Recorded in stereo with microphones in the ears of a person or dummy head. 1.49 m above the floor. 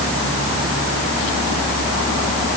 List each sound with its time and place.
Only background noise.